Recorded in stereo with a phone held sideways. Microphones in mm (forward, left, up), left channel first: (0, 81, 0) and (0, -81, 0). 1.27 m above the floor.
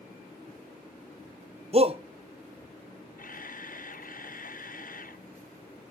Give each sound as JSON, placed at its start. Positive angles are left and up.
{"t": 1.7, "sound": "a shout", "side_deg": -40, "distance_m": 0.7}
{"t": 3.2, "sound": "a camera shutter", "side_deg": 60, "distance_m": 0.7}